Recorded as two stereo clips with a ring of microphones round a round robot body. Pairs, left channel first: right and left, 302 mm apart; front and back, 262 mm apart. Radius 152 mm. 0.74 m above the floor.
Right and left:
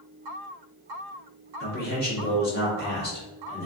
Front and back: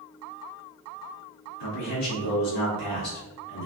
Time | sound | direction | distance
1.6 | a man speaking | 30° right | 1.6 m